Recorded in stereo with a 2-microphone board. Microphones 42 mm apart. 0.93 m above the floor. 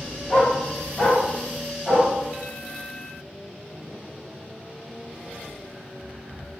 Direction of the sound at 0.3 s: 20° left (ahead or behind).